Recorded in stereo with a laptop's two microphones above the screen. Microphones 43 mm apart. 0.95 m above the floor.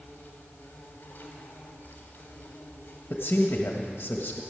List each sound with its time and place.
0.0 s an insect: 40° left (ahead or behind), 3 m
3.1 s a man speaking: 55° left (ahead or behind), 1.4 m